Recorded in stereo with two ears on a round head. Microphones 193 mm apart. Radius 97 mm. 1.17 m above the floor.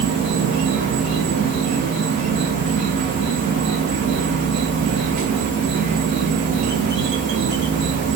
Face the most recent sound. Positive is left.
turn(degrees=-35)  # may be behind; listen again after turning